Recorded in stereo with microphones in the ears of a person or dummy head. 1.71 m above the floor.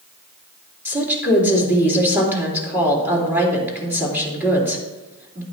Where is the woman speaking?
10° right (ahead or behind), 3.5 m.